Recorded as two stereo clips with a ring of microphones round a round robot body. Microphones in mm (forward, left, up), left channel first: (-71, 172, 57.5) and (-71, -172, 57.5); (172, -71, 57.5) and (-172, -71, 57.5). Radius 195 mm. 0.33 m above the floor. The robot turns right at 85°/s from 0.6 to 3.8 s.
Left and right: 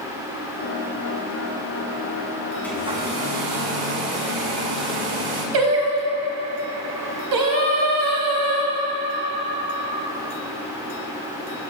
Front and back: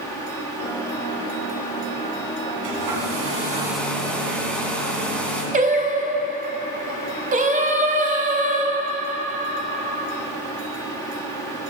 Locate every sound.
2.6 s a hair dryer: 175° left, 2 m; by 5.4 s 85° right, 2 m
5.5 s singing: 110° right, 1.1 m